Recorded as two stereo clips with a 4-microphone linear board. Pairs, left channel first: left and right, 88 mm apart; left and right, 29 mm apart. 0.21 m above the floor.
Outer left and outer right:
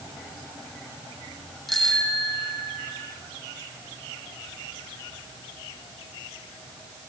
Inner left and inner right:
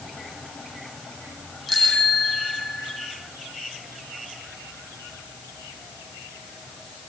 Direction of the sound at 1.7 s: Centre (ahead or behind).